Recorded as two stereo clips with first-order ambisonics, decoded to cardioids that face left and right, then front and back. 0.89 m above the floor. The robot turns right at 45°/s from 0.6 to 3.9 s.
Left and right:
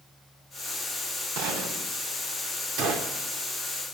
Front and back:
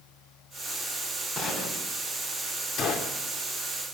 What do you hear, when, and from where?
1.4 s a gunshot: 85° right, 4 m; by 1.9 s 60° right, 4 m
2.8 s a gunshot: 50° right, 2.5 m; by 3.2 s 35° right, 2.5 m